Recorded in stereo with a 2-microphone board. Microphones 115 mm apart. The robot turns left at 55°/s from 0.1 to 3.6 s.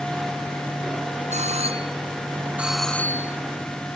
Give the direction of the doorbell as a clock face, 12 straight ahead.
3 o'clock.